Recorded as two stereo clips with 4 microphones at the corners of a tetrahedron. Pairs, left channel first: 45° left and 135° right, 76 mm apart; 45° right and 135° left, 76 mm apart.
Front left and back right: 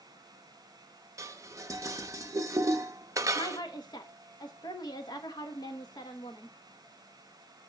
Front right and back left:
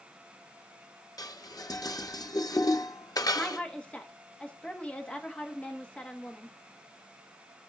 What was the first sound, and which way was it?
Dishes clattering, 85° right.